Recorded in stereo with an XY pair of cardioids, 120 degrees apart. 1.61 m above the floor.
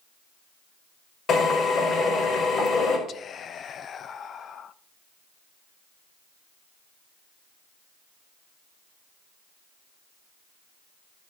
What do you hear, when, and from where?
1.3 s a drill: 45° left, 5 m
3.1 s whispering: 45° left, 0.7 m